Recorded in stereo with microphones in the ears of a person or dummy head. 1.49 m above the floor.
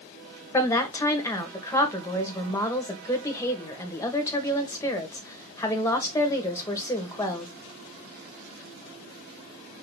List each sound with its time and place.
0.5 s a woman speaking: 15° left (ahead or behind), 1.6 m